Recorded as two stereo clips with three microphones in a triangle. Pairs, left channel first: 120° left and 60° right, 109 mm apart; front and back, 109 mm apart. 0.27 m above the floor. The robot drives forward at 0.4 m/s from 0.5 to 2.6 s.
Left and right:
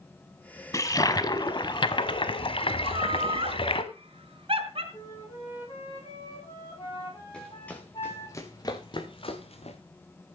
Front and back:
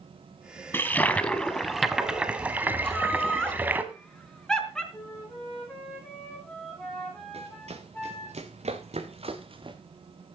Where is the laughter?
85° right, 3.5 m.